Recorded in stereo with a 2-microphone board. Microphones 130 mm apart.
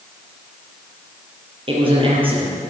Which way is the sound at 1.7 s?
40° right (ahead or behind).